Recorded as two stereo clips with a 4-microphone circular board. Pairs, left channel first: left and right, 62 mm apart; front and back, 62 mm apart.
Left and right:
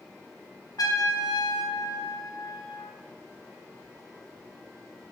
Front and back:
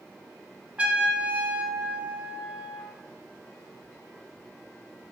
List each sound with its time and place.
0.8 s a trumpet: 110° left, 0.9 m